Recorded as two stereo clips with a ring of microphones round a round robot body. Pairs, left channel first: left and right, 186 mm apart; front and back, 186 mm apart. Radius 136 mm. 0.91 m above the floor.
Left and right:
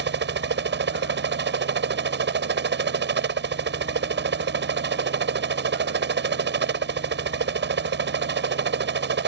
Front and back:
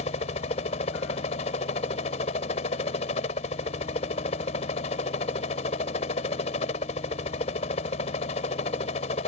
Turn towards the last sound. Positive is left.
turn(degrees=-65)